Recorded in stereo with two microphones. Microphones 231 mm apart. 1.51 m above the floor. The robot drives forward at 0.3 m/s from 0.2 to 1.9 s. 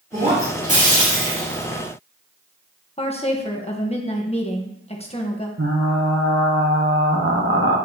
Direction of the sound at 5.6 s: 65° right (ahead or behind).